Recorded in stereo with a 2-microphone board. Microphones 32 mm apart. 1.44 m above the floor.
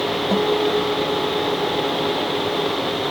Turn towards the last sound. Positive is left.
turn(degrees=0)  # may be behind; listen again after turning